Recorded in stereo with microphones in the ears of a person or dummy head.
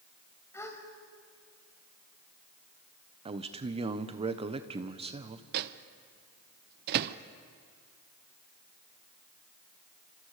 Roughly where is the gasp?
Centre.